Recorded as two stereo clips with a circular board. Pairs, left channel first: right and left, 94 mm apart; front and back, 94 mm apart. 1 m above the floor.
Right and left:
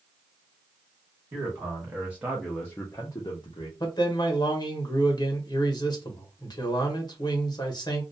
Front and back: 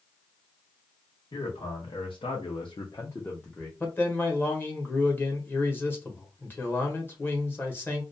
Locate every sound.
1.3 s a man speaking: 30° left, 1.1 m; by 3.7 s 85° right, 0.7 m
3.8 s a man speaking: 65° right, 0.9 m